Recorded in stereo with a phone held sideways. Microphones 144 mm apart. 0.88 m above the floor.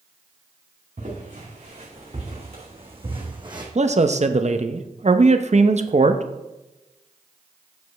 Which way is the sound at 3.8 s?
50° right (ahead or behind).